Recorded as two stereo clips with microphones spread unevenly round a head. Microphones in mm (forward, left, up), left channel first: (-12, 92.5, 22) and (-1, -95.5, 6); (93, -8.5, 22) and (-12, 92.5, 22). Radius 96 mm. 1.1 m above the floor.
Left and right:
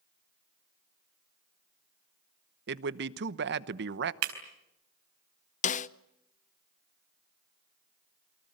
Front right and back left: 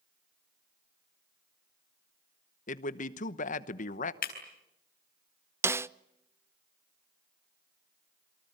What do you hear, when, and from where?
2.7 s a man speaking: 75° right, 1.0 m
4.2 s breaking glass: 90° right, 4 m
5.6 s a snare drum: 75° left, 0.6 m